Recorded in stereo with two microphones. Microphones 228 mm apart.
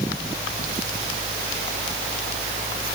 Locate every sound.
Only background noise.